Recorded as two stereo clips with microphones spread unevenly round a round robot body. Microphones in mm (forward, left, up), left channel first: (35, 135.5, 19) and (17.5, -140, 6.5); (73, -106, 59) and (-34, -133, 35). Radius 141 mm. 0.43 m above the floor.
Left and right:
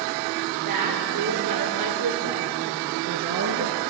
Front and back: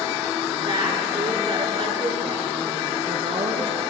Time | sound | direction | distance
0.7 | a woman speaking | 115° right | 6.5 m